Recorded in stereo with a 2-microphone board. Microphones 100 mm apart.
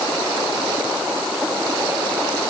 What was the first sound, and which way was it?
Only background noise.